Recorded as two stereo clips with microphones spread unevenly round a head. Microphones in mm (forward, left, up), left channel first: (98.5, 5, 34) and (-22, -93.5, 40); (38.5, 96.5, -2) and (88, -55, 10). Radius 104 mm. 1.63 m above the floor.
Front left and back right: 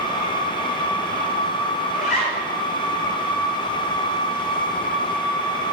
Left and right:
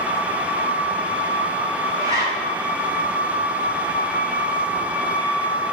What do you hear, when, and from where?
1.9 s a zipper: 5° right, 3 m